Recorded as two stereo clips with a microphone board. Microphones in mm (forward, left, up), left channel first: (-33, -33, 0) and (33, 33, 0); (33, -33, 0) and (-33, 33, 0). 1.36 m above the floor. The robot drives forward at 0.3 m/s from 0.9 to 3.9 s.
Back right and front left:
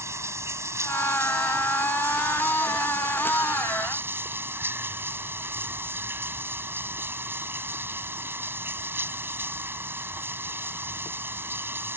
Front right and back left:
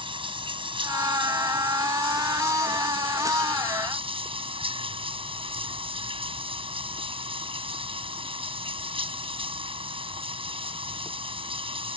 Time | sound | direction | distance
0.0 | running water | 105° left | ?